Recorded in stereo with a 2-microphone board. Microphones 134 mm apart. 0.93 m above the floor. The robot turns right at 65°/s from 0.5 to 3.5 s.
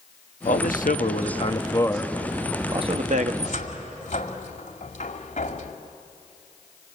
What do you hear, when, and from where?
0.5 s a man speaking: 70° left, 1.2 m; by 3.3 s 105° right, 1.2 m
3.4 s a cupboard door: 55° left (ahead or behind), 1.8 m; by 5.7 s 60° left (ahead or behind), 1.8 m